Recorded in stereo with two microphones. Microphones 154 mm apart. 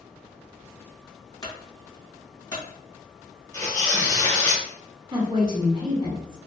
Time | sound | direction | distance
1.4 | a clunk | 25° left (ahead or behind) | 1.2 m
3.5 | tearing paper | 20° left (ahead or behind) | 1.2 m
5.1 | a woman speaking | 30° right (ahead or behind) | 0.8 m